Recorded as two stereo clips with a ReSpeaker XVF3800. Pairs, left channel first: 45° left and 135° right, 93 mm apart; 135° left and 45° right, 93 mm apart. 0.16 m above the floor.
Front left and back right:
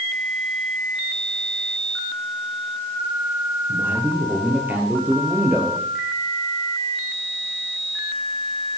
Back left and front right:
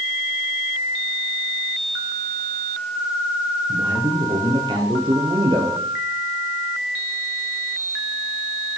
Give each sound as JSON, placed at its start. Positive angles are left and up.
{"t": 3.7, "sound": "a man speaking", "azimuth_deg": -70, "distance_m": 4.0}